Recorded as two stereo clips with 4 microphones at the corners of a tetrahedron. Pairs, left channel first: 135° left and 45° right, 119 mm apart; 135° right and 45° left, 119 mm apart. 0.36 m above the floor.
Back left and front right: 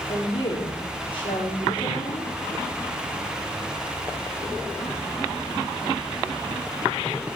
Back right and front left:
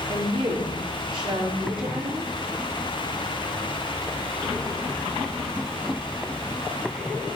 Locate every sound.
0.1 s a woman speaking: 90° left, 6.5 m